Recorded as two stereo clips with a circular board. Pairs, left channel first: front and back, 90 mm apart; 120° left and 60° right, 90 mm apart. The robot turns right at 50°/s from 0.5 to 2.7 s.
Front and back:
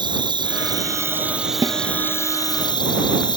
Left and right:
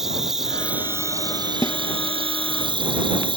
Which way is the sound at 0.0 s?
145° right.